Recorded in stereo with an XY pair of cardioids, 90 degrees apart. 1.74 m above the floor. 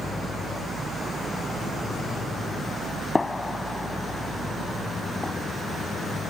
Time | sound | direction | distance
3.1 | a gunshot | 25° left | ?